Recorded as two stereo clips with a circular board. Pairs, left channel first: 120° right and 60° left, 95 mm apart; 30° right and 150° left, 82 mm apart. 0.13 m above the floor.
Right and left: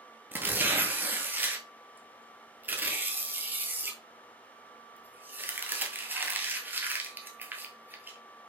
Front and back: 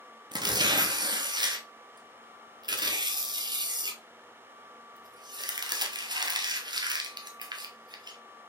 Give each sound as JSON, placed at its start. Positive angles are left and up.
{"t": 0.3, "sound": "tearing paper", "azimuth_deg": 130, "distance_m": 0.8}